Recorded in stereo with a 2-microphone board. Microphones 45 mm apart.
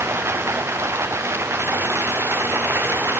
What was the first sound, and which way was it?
Running water, 80° right.